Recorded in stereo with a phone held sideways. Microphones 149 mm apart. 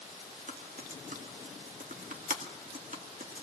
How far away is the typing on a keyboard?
About 2 m.